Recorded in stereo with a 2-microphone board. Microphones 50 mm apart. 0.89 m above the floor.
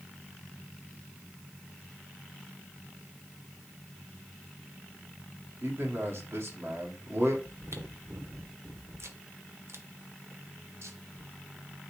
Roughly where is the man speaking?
Right.